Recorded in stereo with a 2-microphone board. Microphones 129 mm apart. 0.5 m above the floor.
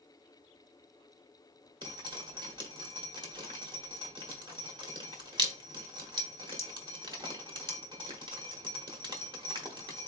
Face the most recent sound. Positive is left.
turn(degrees=-35)  # may be behind; listen again after turning